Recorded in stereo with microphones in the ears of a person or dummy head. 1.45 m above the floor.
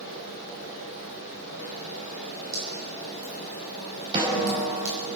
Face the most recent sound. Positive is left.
turn(degrees=-30)  # may be behind; listen again after turning